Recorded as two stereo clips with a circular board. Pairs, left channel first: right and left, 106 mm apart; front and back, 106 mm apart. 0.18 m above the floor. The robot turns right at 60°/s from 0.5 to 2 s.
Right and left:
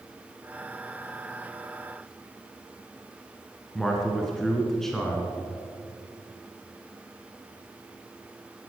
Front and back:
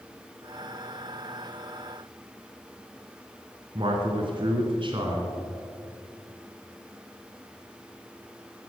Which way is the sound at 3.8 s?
175° right.